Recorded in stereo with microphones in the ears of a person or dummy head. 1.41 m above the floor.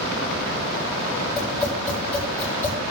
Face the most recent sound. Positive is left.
turn(degrees=15)  # may be behind; listen again after turning